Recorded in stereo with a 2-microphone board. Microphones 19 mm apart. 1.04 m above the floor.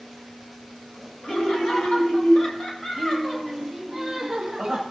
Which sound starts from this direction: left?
Laughter, at 1.2 s.